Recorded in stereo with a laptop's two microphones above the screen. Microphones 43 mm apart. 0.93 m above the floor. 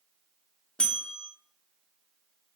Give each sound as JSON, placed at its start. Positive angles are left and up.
{"t": 0.8, "sound": "a bell", "side_deg": 25, "distance_m": 0.9}